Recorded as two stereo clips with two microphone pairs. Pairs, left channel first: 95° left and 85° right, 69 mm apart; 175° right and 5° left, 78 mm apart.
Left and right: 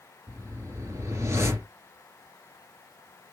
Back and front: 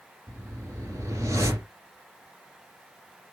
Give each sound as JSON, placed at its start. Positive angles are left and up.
{"t": 0.3, "sound": "a whoosh", "azimuth_deg": -40, "distance_m": 1.9}